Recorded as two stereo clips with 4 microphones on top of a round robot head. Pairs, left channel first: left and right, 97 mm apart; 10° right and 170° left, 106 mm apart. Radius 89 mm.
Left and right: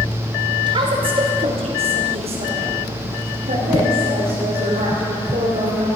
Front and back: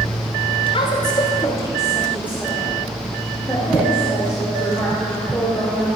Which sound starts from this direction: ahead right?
A woman speaking, at 0.7 s.